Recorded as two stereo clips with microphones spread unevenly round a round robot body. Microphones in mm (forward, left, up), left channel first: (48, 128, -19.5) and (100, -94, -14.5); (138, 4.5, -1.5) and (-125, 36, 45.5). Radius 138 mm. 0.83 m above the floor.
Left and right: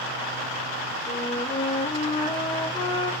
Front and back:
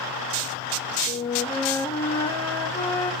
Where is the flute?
50° left, 1.1 m.